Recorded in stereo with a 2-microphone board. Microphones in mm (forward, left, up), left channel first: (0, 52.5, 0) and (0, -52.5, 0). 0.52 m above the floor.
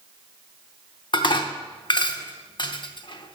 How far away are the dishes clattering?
About 0.6 m.